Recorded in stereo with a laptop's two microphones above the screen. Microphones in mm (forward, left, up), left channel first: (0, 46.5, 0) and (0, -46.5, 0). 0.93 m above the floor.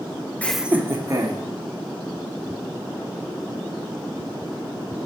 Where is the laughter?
15° left (ahead or behind), 0.5 m; by 1.4 s 40° right (ahead or behind), 1.5 m.